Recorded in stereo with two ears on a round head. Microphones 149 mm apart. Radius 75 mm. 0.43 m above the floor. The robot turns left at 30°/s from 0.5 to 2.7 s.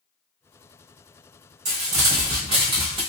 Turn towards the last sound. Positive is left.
turn(degrees=-140)